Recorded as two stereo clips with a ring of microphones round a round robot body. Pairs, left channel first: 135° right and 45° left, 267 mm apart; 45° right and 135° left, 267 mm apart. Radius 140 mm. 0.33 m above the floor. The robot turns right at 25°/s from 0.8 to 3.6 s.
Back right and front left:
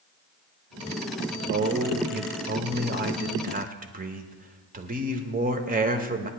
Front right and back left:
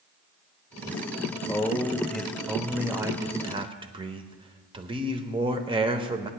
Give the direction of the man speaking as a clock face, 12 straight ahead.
11 o'clock.